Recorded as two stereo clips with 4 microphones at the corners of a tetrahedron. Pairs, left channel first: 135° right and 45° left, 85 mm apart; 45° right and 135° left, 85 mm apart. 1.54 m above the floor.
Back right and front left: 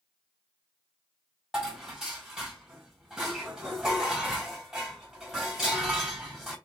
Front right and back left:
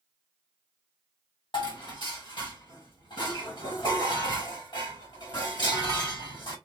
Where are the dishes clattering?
35° right, 1.4 m.